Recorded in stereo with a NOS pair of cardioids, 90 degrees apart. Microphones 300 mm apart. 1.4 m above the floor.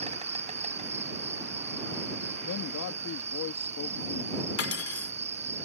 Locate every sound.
0.0 s an insect: 20° right
2.4 s a man speaking: 65° left
4.6 s cutlery clinking: 50° left